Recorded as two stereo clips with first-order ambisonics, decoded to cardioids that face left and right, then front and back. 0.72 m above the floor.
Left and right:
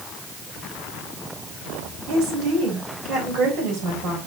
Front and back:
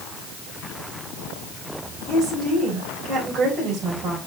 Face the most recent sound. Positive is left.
turn(degrees=-120)